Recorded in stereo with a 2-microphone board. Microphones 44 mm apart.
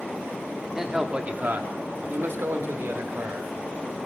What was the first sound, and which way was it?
A man speaking, 10° right (ahead or behind).